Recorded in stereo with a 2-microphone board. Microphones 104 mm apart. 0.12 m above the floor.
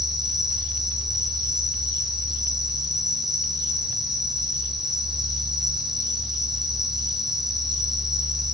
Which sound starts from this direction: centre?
An insect, at 0.0 s.